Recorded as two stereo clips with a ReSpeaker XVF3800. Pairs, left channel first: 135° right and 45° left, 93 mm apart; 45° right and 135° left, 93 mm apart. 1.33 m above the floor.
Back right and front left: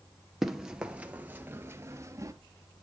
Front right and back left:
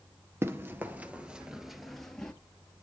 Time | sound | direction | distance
0.4 | running footsteps | 130° left | 1.4 m